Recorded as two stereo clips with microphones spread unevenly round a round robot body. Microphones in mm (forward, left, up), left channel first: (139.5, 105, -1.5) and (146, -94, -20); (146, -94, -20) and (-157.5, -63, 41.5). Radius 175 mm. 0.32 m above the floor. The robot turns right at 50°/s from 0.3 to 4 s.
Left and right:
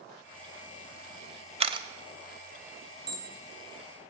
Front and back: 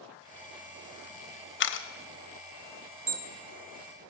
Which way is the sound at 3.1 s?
95° right.